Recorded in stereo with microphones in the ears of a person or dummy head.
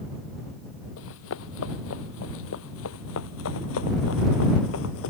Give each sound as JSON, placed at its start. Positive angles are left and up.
{"t": 1.0, "sound": "running footsteps", "side_deg": 75}